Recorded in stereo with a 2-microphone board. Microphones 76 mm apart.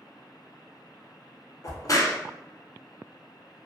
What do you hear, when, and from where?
1.6 s a crack: 50° left (ahead or behind), 0.6 m